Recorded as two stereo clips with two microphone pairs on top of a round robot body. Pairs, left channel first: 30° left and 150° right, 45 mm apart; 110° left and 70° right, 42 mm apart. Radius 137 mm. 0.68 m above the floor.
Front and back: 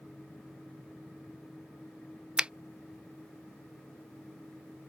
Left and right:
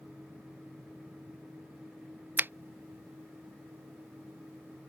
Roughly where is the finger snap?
Right.